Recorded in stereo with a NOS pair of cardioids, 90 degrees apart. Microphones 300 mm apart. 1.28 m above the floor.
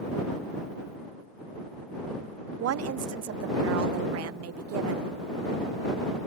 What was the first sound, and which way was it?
A woman speaking, 60° right.